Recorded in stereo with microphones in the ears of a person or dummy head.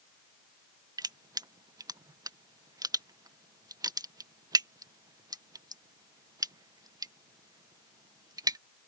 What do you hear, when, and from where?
1.0 s crushing: 10° right (ahead or behind)